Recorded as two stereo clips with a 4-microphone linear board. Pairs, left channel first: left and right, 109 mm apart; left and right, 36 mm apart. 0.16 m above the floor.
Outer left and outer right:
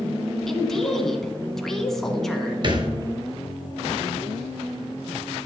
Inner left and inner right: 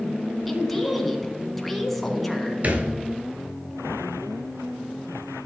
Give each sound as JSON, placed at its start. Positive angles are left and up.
{"t": 0.5, "sound": "a woman speaking", "side_deg": 5, "distance_m": 1.4}
{"t": 2.6, "sound": "a thud", "side_deg": -45, "distance_m": 1.3}